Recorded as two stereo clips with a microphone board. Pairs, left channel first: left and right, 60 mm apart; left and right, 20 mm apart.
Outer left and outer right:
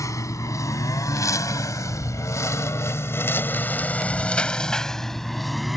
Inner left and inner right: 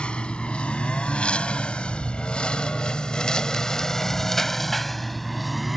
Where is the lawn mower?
65° left (ahead or behind); by 5.8 s centre (ahead or behind).